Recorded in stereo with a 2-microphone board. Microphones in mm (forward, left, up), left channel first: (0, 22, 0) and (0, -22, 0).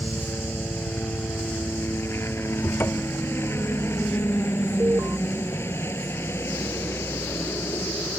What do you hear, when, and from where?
0.0 s a helicopter: 70° left (ahead or behind)
2.6 s a cupboard door: 55° left (ahead or behind)
4.8 s an alarm: 65° right (ahead or behind)